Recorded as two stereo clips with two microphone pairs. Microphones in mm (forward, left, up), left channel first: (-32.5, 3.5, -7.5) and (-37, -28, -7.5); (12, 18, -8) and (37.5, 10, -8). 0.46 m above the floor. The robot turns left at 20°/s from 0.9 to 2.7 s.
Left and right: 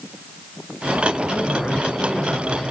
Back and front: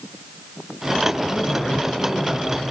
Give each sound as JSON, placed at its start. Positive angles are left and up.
{"t": 1.3, "sound": "a man speaking", "azimuth_deg": 145, "distance_m": 10.0}